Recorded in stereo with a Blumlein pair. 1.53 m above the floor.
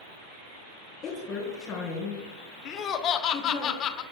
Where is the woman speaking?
25° left, 4 m.